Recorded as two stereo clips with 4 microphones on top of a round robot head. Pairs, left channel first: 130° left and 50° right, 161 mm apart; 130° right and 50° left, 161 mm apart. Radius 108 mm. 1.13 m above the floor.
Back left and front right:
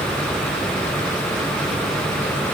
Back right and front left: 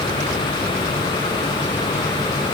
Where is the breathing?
I don't hear breathing.